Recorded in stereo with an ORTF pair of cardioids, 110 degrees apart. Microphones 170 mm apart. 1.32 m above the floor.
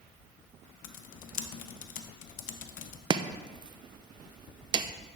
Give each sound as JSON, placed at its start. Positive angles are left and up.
{"t": 0.8, "sound": "typing on a keyboard", "azimuth_deg": 55, "distance_m": 0.8}
{"t": 3.1, "sound": "chopping", "azimuth_deg": -25, "distance_m": 0.5}